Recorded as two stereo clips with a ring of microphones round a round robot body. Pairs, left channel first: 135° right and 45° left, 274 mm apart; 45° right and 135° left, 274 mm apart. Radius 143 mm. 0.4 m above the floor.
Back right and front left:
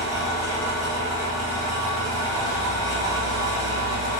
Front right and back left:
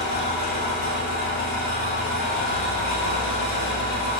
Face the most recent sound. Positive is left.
turn(degrees=-25)